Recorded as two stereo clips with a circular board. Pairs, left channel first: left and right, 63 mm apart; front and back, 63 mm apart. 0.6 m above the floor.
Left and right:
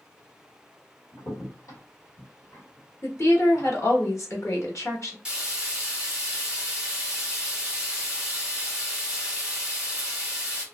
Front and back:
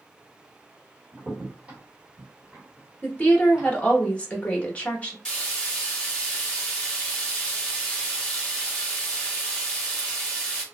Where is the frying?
50° right, 1.1 m.